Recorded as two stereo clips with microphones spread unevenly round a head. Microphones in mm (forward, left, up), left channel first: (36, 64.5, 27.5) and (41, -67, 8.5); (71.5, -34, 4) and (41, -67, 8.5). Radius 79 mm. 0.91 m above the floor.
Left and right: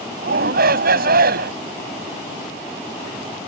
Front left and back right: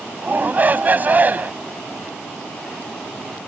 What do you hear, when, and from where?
0.2 s a shout: 80° right